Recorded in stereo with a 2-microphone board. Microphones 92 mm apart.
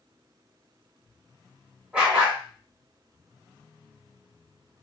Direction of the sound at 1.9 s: 10° right (ahead or behind).